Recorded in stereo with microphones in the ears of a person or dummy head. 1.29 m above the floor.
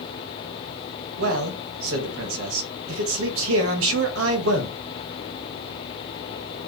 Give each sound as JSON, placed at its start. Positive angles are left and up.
{"t": 1.2, "sound": "a man speaking", "side_deg": -85, "distance_m": 0.7}